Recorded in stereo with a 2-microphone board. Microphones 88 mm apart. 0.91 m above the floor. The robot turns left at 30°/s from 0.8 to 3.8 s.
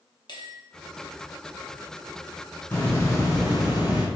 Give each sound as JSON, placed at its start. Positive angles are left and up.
{"t": 0.3, "sound": "a bell", "side_deg": 55, "distance_m": 0.9}
{"t": 2.7, "sound": "a hiss", "azimuth_deg": 155, "distance_m": 1.9}